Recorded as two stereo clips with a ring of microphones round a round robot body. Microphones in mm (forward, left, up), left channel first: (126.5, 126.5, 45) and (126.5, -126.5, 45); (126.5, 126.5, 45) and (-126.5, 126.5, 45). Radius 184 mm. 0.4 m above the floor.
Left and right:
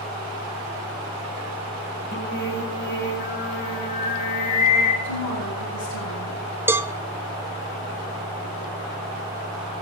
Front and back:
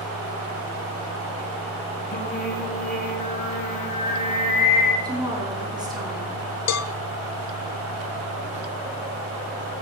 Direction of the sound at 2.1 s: 50° left.